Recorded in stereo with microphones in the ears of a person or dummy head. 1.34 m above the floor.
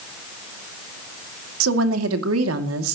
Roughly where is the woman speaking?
Right.